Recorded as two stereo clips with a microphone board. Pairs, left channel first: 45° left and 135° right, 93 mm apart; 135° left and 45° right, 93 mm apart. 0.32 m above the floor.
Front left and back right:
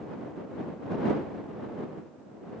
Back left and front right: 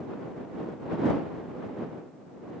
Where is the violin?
I don't hear a violin.